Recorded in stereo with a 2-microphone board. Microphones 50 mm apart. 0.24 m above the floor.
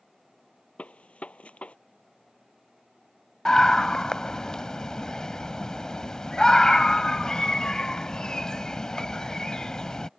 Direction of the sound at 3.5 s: 15° left (ahead or behind).